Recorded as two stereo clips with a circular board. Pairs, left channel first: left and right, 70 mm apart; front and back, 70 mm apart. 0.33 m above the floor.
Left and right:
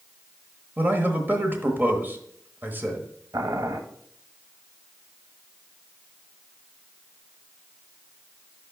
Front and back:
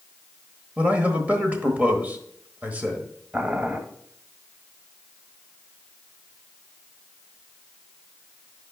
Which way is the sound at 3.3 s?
105° right.